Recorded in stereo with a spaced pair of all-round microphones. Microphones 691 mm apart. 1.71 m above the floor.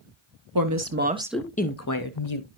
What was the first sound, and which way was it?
A woman speaking, 30° right (ahead or behind).